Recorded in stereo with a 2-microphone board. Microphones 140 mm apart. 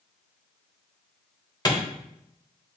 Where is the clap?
30° left (ahead or behind), 1.1 m.